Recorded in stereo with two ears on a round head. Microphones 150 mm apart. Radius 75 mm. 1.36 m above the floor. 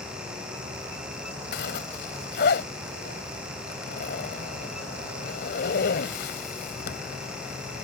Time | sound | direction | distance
1.5 | a zipper | 65° left (ahead or behind) | ?